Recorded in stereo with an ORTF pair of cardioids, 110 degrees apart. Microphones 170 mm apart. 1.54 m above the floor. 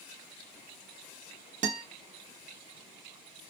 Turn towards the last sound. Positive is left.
turn(degrees=-50)